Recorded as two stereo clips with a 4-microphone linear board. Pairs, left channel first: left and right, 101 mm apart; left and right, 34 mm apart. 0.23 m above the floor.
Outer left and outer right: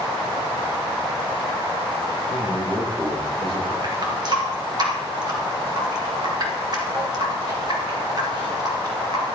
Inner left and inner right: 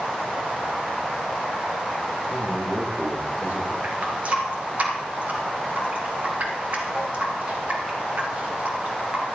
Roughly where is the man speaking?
Right.